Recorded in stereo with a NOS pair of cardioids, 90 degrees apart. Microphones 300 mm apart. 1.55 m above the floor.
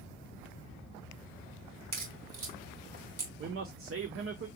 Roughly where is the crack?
Ahead right.